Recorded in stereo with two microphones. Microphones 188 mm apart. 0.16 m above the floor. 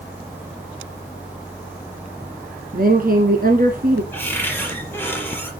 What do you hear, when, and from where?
2.7 s a woman speaking: 50° right (ahead or behind), 1.8 m
4.1 s a cupboard door: 10° left (ahead or behind), 4.5 m